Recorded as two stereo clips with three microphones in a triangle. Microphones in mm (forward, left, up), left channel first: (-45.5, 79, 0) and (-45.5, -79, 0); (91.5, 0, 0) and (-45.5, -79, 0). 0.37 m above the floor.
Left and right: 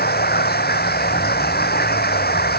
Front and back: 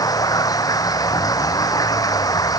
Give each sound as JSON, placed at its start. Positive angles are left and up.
{"t": 0.0, "sound": "running water", "azimuth_deg": 95}